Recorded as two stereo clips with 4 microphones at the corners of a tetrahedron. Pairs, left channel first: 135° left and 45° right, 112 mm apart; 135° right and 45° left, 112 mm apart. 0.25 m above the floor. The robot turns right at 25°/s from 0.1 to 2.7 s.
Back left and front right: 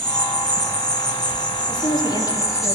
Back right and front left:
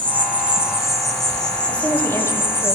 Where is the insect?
110° left, 2.5 m; by 2.7 s 175° left, 2.5 m.